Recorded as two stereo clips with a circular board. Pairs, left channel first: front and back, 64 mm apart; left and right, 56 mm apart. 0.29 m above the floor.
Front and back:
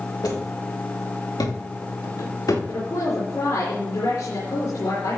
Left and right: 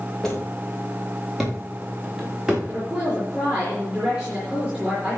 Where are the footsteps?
10° left, 5.5 m; by 2.6 s 10° right, 6 m.